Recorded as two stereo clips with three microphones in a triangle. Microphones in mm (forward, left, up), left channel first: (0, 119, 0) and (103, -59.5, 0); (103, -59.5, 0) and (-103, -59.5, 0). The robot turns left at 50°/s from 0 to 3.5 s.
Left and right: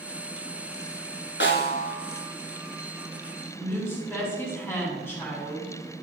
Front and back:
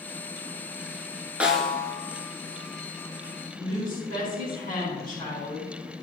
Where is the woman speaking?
40° left, 4 m.